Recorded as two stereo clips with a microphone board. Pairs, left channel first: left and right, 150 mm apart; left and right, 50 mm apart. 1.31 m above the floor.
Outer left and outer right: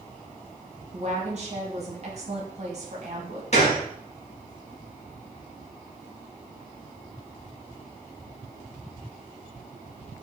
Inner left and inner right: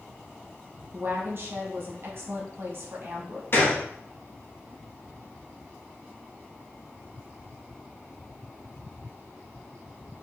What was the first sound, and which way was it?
A woman speaking, 50° right (ahead or behind).